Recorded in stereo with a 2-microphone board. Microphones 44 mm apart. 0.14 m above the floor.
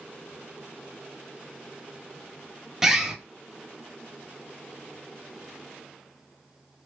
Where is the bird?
10° right (ahead or behind), 0.8 m.